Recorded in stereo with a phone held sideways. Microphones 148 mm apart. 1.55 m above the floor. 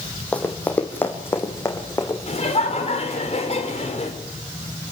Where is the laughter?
45° left (ahead or behind), 5.5 m.